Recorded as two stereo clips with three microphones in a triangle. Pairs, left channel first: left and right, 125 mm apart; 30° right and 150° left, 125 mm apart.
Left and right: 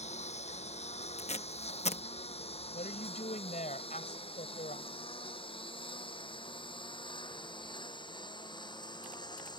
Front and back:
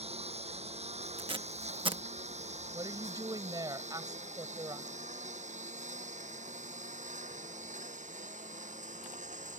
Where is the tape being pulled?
110° left.